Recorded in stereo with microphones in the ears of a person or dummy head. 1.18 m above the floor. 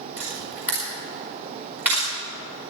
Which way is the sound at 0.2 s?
20° right (ahead or behind).